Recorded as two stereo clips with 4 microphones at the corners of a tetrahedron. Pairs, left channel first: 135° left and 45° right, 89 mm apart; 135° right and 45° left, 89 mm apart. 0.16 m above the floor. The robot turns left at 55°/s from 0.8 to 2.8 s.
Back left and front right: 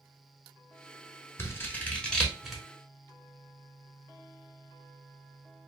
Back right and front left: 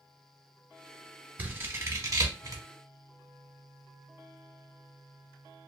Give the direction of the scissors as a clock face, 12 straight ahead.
9 o'clock.